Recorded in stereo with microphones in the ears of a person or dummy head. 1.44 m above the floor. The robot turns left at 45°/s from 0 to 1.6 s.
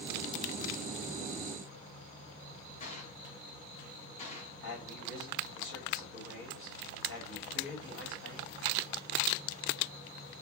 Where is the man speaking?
60° left (ahead or behind), 3 m.